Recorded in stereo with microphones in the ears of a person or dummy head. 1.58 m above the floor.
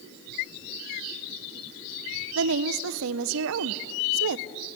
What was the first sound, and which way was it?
A woman speaking, 80° right.